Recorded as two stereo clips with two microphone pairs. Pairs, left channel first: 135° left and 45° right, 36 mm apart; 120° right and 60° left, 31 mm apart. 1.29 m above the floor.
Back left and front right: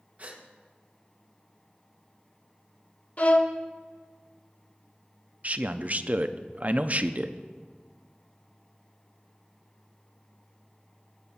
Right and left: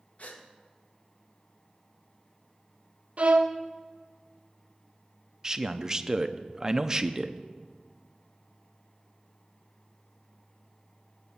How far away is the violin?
About 0.8 m.